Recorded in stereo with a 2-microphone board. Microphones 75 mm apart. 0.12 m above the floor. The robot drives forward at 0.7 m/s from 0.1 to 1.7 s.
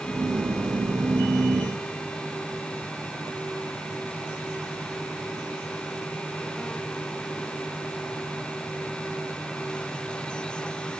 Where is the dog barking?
No dog barking in this recording.